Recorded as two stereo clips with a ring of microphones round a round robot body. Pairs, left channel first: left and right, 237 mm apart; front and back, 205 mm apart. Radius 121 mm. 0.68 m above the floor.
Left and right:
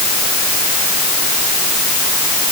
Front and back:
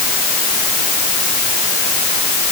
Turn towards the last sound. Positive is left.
No sound to turn to.